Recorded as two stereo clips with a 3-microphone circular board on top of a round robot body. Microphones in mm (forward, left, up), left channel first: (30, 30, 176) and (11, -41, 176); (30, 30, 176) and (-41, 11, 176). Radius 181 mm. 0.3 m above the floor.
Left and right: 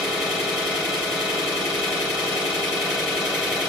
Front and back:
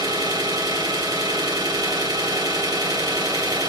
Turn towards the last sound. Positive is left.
turn(degrees=170)